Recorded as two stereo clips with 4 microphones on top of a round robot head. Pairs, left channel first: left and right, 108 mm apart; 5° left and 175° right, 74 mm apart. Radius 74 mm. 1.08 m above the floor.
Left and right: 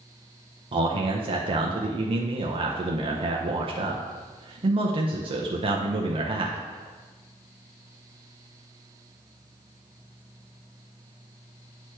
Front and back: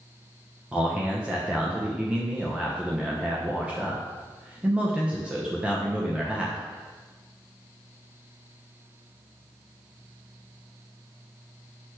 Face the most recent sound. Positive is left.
turn(degrees=-100)